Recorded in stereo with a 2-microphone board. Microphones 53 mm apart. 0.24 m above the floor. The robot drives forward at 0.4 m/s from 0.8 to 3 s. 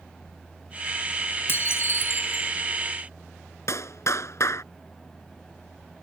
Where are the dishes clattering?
45° left (ahead or behind); by 2.5 s 55° left (ahead or behind).